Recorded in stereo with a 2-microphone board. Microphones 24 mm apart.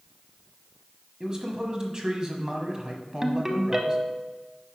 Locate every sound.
1.2 s a man speaking: 30° right (ahead or behind), 1.1 m
3.2 s a ringtone: 20° right (ahead or behind), 0.7 m